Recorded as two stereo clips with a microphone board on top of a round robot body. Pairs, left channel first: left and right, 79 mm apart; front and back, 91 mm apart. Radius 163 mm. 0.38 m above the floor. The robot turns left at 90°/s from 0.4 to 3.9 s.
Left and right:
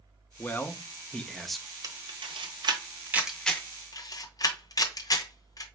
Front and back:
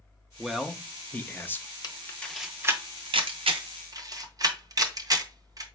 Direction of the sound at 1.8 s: 45° right.